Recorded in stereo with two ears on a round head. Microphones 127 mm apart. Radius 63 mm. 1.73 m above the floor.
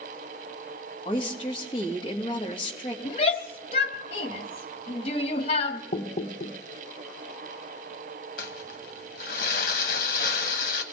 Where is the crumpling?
75° left (ahead or behind), 1.2 m.